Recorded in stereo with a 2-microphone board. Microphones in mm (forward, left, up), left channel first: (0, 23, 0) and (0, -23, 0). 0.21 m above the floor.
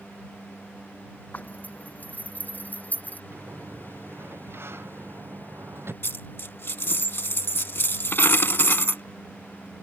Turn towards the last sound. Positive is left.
turn(degrees=55)  # may be behind; listen again after turning